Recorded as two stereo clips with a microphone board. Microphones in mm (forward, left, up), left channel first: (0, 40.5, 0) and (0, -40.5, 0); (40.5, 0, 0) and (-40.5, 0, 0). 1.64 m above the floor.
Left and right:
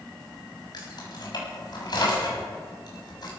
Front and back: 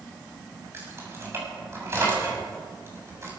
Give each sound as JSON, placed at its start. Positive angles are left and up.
{"t": 0.7, "sound": "keys jangling", "azimuth_deg": 120, "distance_m": 7.5}